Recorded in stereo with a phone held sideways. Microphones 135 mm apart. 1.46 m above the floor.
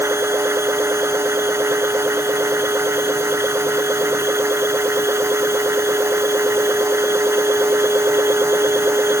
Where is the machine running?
20° right (ahead or behind).